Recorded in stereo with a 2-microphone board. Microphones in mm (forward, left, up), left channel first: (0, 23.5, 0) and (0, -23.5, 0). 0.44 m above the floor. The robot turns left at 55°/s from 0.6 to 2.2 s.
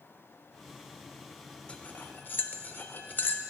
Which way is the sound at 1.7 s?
25° left (ahead or behind).